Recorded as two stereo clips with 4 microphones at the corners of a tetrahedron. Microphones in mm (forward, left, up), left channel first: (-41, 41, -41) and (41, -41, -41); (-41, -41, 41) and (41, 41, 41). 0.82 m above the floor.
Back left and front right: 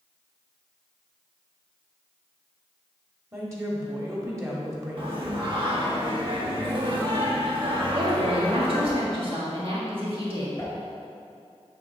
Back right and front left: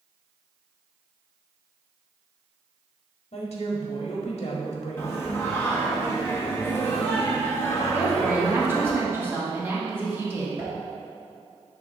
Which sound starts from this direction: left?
A pop, at 10.6 s.